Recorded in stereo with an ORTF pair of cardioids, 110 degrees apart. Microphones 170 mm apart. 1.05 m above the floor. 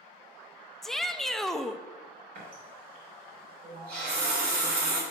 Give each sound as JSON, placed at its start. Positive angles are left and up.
{"t": 0.8, "sound": "a shout", "azimuth_deg": 0, "distance_m": 0.5}
{"t": 2.4, "sound": "a running tap", "azimuth_deg": -60, "distance_m": 2.5}